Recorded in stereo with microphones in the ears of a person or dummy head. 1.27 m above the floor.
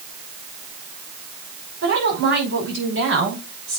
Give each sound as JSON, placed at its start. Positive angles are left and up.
{"t": 1.8, "sound": "a woman speaking", "side_deg": -65, "distance_m": 5.5}